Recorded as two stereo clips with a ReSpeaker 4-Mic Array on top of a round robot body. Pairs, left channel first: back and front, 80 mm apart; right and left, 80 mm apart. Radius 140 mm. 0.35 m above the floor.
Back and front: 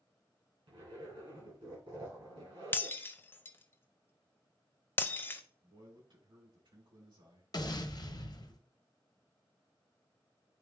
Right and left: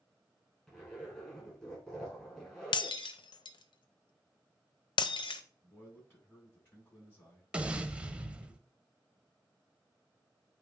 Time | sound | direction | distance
0.7 | a zipper | 10° right | 5.5 m
2.7 | breaking glass | 115° right | 0.6 m
5.6 | a man speaking | 25° right | 6 m
7.5 | an explosion | 165° left | 1.1 m